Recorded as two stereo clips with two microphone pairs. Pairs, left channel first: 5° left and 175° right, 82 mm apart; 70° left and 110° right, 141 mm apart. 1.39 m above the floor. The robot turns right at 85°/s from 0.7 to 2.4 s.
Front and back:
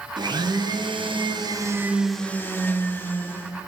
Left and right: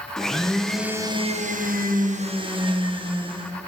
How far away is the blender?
About 1.1 m.